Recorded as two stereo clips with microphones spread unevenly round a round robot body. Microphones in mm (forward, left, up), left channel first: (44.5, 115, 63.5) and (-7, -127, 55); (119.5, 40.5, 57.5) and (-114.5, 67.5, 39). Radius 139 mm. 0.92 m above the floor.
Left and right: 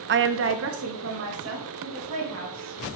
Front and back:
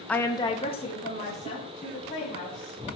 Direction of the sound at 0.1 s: 95° right.